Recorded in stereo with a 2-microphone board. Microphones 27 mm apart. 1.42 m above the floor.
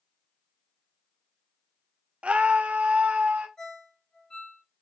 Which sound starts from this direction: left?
A ringtone, at 3.6 s.